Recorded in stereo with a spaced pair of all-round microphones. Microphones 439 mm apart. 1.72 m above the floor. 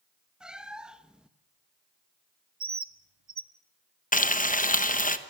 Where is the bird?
65° right (ahead or behind), 0.9 m.